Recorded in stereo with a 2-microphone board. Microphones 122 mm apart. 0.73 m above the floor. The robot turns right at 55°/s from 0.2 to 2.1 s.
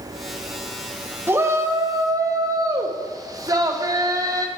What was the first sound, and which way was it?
A shout, 15° right (ahead or behind).